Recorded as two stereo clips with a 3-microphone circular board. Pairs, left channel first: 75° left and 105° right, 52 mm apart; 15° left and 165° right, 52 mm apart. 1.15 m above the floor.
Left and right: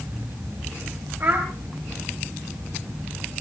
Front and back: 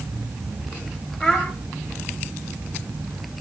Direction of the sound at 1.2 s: 75° right.